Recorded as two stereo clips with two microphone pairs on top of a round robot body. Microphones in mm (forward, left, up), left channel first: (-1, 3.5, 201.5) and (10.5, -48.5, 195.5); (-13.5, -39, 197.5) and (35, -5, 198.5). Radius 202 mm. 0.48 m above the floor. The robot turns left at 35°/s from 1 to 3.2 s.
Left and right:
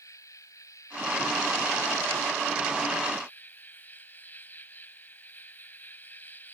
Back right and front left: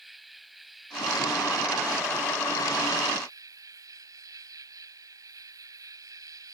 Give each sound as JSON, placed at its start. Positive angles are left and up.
{"t": 0.0, "sound": "an insect", "azimuth_deg": 125}